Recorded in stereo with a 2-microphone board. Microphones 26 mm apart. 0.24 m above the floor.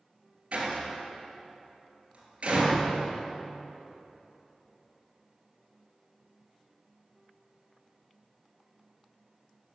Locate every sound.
0.5 s a door slam: 45° right (ahead or behind), 3 m